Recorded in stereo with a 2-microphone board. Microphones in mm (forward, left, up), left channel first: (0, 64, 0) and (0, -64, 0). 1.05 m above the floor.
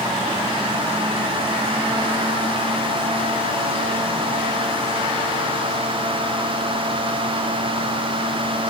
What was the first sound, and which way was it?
Only background noise.